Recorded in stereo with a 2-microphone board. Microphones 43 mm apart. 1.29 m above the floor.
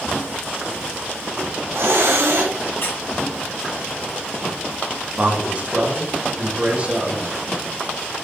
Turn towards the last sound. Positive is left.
turn(degrees=-30)  # may be behind; listen again after turning